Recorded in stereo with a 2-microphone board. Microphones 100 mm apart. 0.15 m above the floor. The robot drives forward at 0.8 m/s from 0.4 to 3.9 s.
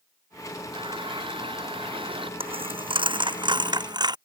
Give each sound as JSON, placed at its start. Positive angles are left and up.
{"t": 0.7, "sound": "a running tap", "side_deg": -55}
{"t": 2.4, "sound": "a dropped coin", "side_deg": -70}